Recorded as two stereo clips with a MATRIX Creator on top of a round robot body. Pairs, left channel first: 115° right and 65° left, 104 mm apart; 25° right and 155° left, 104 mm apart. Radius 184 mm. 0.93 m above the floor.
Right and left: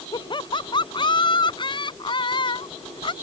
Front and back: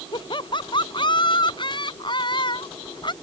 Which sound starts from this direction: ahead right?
Laughter, at 0.1 s.